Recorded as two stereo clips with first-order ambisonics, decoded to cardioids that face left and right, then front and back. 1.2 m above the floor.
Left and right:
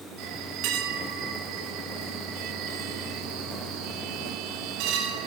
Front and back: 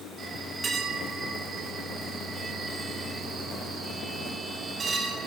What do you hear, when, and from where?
0.2 s a bell: 110° right, 1.7 m